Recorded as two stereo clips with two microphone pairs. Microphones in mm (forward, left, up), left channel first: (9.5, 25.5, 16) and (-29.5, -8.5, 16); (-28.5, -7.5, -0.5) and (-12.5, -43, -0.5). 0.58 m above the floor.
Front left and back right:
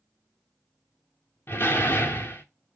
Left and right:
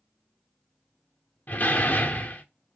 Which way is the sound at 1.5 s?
80° left.